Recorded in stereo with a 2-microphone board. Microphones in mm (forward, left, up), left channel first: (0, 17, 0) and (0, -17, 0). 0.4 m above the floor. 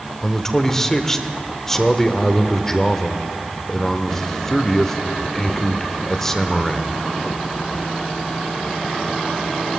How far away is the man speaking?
About 0.8 m.